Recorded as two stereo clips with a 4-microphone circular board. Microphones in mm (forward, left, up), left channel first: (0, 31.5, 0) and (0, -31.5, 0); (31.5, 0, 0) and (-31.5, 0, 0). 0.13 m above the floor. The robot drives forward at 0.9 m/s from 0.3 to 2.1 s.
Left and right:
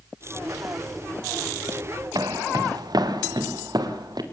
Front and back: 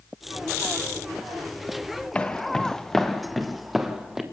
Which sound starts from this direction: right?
Footsteps, at 2.1 s.